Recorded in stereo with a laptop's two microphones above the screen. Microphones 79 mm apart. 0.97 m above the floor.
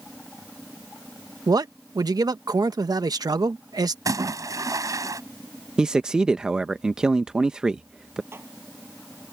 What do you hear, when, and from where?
1.5 s a man speaking: 55° right (ahead or behind)
4.0 s a splash: 45° right (ahead or behind)
5.8 s a man speaking: 10° right (ahead or behind)
8.3 s dishes clattering: 30° right (ahead or behind)